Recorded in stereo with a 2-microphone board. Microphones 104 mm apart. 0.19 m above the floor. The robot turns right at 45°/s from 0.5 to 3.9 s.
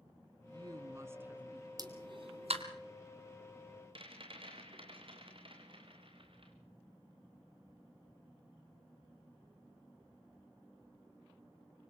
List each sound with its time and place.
0.5 s a woman speaking: 60° right, 2 m; by 1.7 s 5° right, 2 m
1.8 s a pop: 40° right (ahead or behind), 2 m; by 2.6 s 75° right (ahead or behind), 2 m
4.0 s a rattle: 55° right (ahead or behind), 3.5 m